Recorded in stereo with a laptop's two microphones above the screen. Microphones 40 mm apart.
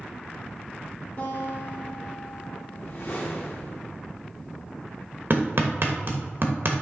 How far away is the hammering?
About 1.0 m.